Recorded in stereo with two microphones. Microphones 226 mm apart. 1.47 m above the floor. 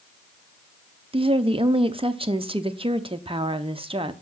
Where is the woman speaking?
25° right (ahead or behind), 0.6 m.